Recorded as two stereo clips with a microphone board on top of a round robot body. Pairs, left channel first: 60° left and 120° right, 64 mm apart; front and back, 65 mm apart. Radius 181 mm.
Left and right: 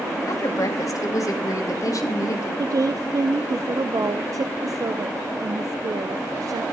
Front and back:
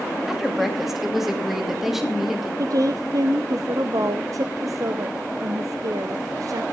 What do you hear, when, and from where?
0.3 s a woman speaking: 95° left, 2.5 m
2.6 s a woman speaking: 150° right, 0.8 m